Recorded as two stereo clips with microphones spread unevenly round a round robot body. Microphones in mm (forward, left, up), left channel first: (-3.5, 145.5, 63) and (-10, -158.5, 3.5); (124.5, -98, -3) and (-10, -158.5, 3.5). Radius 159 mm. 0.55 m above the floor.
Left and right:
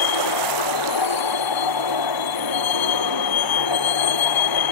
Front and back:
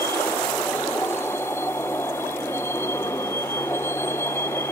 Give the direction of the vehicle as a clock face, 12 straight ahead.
8 o'clock.